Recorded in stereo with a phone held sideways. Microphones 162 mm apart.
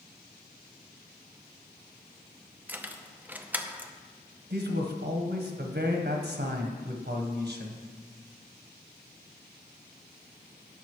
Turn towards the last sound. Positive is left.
turn(degrees=-75)  # may be behind; listen again after turning